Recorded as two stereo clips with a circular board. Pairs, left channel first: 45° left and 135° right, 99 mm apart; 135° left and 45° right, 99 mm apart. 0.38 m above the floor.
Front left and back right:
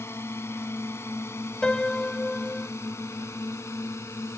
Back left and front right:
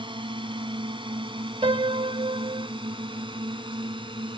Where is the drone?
20° right; by 4.4 s 15° right.